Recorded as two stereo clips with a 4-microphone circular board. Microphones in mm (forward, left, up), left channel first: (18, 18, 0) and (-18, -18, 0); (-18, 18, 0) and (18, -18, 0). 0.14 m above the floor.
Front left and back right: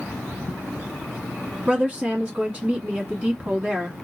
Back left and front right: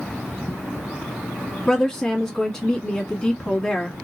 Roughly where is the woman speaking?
Behind.